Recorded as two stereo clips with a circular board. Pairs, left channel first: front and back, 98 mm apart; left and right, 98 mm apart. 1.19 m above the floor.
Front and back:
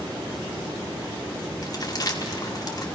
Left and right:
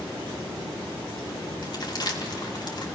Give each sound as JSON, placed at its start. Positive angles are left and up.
{"t": 1.6, "sound": "crumpling", "azimuth_deg": 50, "distance_m": 2.0}